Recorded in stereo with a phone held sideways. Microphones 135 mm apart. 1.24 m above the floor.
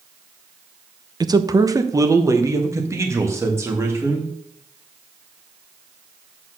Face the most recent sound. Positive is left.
turn(degrees=-20)  # may be behind; listen again after turning